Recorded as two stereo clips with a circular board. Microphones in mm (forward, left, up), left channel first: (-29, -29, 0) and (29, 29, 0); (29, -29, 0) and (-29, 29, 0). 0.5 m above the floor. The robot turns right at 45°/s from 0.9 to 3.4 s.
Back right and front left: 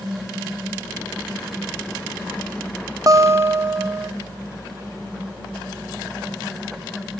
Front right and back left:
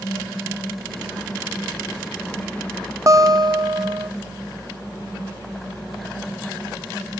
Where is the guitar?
85° left, 0.6 m; by 4.1 s 100° left, 0.6 m.